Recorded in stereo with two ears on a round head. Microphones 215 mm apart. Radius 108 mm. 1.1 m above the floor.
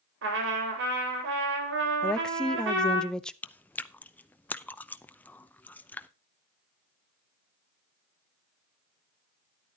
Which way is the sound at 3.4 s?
5° left (ahead or behind).